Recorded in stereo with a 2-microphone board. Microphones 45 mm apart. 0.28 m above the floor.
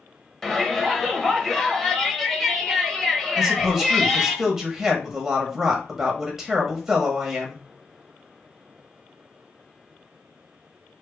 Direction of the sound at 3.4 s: 10° right (ahead or behind).